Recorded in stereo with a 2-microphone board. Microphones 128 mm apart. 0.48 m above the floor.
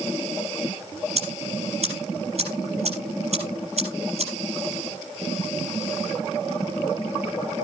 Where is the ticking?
55° right (ahead or behind), 5 m.